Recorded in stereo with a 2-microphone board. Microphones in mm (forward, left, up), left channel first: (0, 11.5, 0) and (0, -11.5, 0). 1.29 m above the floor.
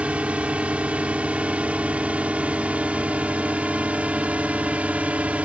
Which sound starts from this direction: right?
A drone, at 0.0 s.